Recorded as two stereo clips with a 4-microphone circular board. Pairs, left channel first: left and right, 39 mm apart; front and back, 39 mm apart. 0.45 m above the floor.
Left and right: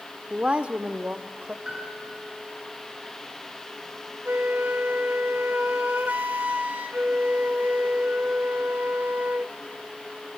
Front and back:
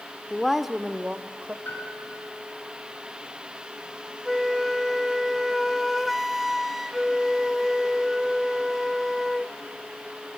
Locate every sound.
0.3 s a woman speaking: 60° right, 0.8 m; by 1.6 s 140° right, 1.3 m
1.6 s a piano: 20° right, 7.5 m
4.2 s a flute: 90° right, 0.8 m